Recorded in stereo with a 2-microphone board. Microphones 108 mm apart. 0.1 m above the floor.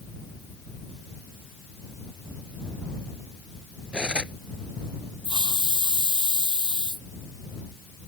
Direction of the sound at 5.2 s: 45° left (ahead or behind).